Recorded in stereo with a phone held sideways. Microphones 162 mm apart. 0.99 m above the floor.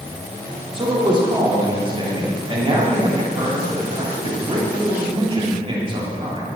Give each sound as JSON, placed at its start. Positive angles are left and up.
{"t": 0.7, "sound": "a man speaking", "side_deg": -30, "distance_m": 3.0}